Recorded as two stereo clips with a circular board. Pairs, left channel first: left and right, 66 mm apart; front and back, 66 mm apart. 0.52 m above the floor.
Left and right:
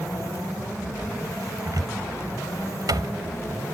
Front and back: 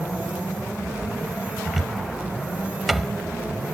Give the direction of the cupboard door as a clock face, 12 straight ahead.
3 o'clock.